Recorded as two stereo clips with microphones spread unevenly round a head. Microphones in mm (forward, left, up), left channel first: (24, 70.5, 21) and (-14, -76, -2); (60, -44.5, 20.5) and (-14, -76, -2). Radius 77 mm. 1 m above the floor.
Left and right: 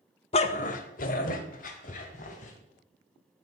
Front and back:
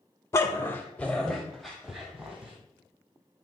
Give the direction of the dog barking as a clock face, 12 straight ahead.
10 o'clock.